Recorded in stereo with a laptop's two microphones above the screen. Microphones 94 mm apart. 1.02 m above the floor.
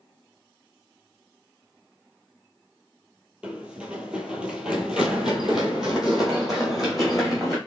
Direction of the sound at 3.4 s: 10° right (ahead or behind).